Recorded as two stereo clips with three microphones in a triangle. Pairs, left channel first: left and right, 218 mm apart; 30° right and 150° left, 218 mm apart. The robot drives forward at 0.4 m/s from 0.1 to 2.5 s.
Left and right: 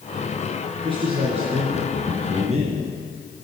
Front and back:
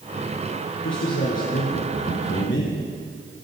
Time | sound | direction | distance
0.8 | a man speaking | 25° right | 3 m